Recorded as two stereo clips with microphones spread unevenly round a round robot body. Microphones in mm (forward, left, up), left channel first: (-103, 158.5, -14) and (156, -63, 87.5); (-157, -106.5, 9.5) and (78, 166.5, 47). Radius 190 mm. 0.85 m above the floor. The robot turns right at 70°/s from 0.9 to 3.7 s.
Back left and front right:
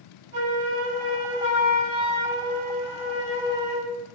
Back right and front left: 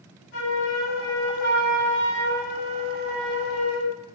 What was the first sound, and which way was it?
A flute, 100° right.